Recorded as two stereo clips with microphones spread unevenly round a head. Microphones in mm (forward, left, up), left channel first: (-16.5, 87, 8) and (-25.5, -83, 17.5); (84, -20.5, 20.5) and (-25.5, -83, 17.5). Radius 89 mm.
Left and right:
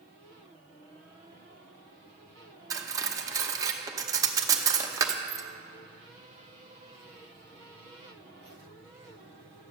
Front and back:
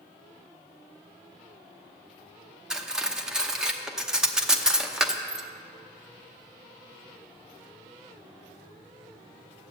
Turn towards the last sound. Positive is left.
turn(degrees=-70)